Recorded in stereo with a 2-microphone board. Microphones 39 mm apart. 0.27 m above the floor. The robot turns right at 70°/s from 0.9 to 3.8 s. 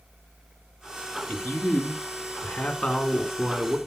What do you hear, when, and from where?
1.3 s a man speaking: 40° left, 2 m; by 3.8 s 145° right, 2 m